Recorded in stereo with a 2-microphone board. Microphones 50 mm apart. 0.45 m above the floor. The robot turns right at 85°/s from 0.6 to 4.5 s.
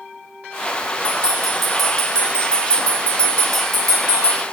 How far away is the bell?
About 0.6 m.